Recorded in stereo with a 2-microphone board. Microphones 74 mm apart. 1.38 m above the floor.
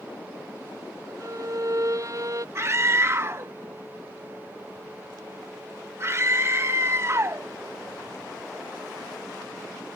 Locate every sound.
1.2 s a violin: 45° right (ahead or behind)
2.5 s a scream: 35° right (ahead or behind)